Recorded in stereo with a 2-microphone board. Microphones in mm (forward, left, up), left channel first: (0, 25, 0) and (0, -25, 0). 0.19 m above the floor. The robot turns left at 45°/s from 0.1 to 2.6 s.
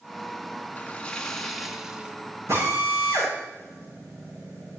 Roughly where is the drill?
Right.